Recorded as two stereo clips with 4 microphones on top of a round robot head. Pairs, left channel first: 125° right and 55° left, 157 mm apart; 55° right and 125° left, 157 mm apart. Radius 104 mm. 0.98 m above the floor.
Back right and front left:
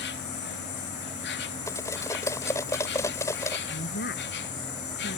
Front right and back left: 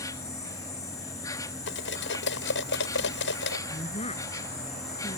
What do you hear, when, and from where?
0.0 s an insect: 125° right
1.7 s cutlery clinking: 55° right
3.7 s a woman speaking: 110° right